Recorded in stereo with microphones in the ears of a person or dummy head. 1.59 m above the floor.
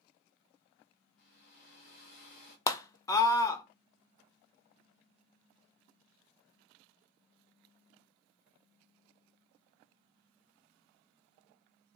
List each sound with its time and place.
1.2 s a hair dryer: 55° left (ahead or behind), 1.3 m
2.7 s a scream: 25° left (ahead or behind), 0.6 m